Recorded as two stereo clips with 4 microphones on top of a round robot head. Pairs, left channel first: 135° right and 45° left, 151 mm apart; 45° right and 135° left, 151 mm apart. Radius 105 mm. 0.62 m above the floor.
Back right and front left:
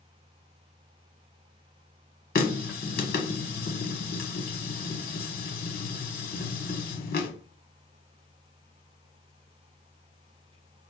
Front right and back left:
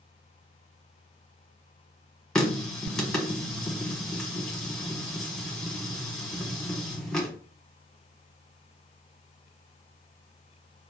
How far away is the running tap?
About 1.0 m.